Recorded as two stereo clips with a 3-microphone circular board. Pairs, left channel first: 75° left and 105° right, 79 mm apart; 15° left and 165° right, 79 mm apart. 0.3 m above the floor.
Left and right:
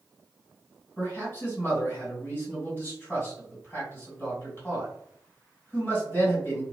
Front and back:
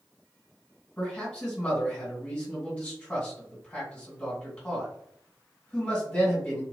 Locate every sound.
1.0 s a man speaking: 75° left, 1.6 m